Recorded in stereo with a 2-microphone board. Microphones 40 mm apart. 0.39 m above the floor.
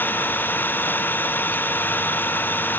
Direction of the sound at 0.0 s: 55° left (ahead or behind).